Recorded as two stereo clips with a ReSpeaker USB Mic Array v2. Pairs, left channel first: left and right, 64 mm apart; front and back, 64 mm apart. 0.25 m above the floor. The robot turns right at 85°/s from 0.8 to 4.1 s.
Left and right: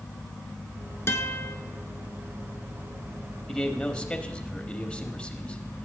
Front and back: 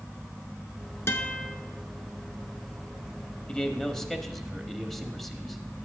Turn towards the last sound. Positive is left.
turn(degrees=80)